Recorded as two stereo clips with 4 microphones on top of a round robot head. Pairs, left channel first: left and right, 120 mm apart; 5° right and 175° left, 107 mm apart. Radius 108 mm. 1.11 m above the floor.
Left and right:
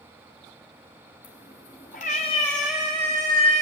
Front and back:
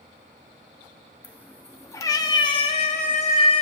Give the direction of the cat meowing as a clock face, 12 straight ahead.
10 o'clock.